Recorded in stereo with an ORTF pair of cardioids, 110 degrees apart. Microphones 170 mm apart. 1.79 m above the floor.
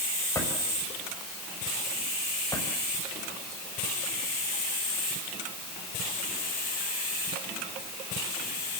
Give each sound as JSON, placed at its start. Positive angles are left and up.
{"t": 0.3, "sound": "a drawer", "azimuth_deg": 20, "distance_m": 5.5}